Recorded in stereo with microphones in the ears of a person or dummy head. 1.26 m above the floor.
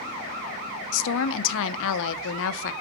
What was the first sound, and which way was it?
A woman speaking, 70° left (ahead or behind).